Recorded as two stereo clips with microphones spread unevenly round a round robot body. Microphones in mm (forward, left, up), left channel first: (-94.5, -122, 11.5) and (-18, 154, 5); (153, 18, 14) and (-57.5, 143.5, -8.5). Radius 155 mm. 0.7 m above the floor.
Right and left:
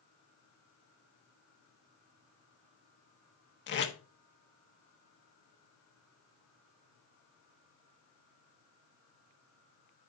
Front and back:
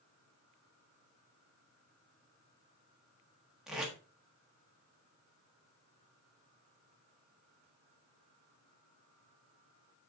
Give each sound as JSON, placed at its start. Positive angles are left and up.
{"t": 3.7, "sound": "tape being pulled", "azimuth_deg": -130, "distance_m": 1.4}